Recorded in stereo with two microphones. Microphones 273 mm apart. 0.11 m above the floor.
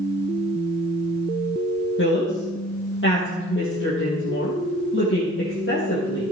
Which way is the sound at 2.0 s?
45° left (ahead or behind).